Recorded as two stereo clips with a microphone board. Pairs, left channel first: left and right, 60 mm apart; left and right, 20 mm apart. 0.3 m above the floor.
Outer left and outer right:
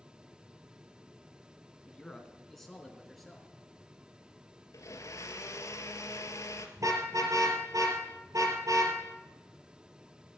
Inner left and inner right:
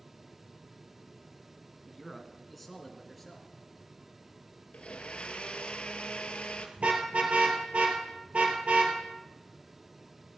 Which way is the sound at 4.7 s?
65° left (ahead or behind).